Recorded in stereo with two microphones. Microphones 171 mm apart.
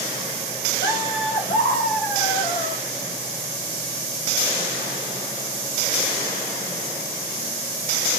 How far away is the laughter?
About 1.6 m.